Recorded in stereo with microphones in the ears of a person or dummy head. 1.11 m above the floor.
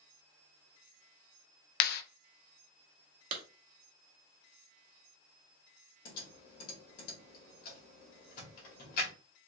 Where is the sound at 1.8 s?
55° left (ahead or behind), 0.6 m.